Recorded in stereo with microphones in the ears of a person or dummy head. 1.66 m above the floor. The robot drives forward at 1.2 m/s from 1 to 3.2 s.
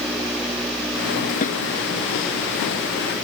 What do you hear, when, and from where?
1.4 s a snare drum: 45° left (ahead or behind)